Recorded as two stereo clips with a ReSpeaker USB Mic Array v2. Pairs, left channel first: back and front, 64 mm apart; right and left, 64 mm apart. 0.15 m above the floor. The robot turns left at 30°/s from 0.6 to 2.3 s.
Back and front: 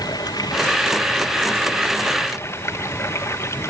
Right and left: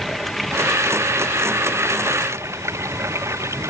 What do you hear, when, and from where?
0.0 s running water: 175° right; by 3.7 s 135° left